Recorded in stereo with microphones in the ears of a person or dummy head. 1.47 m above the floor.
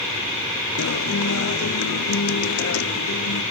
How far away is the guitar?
About 0.9 m.